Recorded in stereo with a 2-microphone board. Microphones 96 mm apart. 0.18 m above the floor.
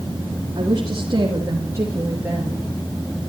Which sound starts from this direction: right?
A woman speaking, at 0.6 s.